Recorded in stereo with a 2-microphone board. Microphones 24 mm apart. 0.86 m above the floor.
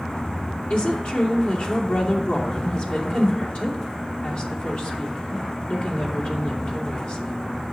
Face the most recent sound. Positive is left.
turn(degrees=65)  # may be behind; listen again after turning